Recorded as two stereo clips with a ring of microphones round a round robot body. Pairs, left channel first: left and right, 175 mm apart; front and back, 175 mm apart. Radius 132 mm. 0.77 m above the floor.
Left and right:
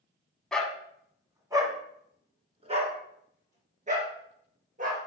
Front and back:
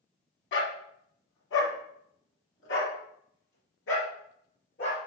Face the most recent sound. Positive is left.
turn(degrees=-50)